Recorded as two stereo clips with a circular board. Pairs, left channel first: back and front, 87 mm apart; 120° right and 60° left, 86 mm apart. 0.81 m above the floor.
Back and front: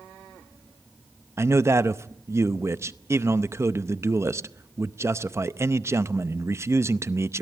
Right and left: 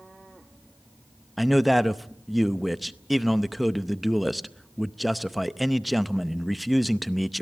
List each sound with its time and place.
1.4 s a man speaking: 30° right, 0.6 m